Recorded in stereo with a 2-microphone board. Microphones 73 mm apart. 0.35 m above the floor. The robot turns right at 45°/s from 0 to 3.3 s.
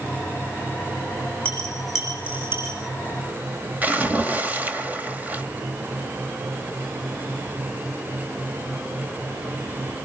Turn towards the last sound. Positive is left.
turn(degrees=-25)  # may be behind; listen again after turning